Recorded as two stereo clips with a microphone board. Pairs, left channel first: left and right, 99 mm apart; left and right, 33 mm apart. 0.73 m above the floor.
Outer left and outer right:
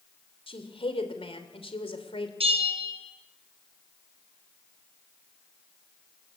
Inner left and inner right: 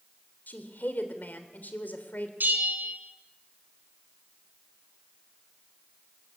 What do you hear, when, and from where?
0.5 s a woman speaking: 70° left (ahead or behind), 3 m
2.4 s a bell: 85° right, 4.5 m